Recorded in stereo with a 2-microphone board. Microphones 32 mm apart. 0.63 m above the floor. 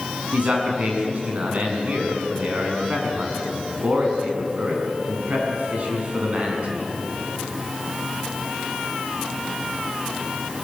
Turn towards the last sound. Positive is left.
turn(degrees=-45)  # may be behind; listen again after turning